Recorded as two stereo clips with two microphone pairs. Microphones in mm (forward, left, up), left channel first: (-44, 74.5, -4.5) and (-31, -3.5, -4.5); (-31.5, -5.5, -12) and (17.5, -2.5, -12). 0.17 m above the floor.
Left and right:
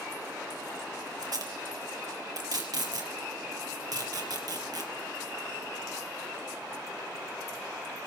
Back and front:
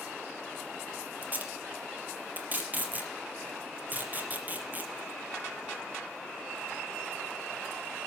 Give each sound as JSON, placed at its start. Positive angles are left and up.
{"t": 1.2, "sound": "tape being pulled", "azimuth_deg": -50, "distance_m": 4.5}